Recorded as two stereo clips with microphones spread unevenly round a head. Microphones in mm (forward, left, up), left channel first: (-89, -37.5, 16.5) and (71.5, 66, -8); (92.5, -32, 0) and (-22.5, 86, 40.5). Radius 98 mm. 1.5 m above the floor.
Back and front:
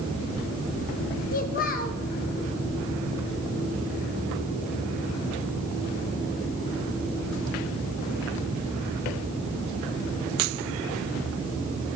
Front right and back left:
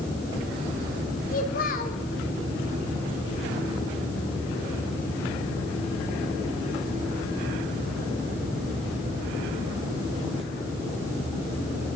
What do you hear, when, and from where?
1.3 s a child speaking: 100° right, 1.3 m